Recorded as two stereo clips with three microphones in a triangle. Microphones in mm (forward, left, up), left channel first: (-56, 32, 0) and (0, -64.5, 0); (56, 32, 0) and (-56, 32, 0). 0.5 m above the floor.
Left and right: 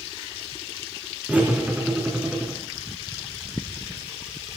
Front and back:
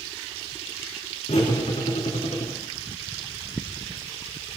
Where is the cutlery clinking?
20° left, 4 m.